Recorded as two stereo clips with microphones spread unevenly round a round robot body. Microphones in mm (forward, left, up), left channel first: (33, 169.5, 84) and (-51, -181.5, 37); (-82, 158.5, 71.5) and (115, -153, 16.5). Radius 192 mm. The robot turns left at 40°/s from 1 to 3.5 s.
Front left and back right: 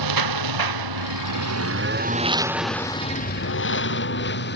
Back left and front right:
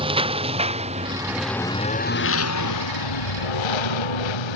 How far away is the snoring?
I don't hear snoring.